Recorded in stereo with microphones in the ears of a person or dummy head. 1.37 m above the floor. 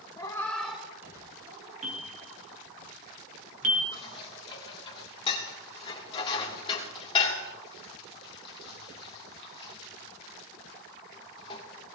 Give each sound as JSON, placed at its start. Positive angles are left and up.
{"t": 0.2, "sound": "a cat meowing", "side_deg": 25, "distance_m": 1.3}
{"t": 1.8, "sound": "a bell", "side_deg": -40, "distance_m": 1.8}
{"t": 3.9, "sound": "dishes clattering", "side_deg": 30, "distance_m": 2.0}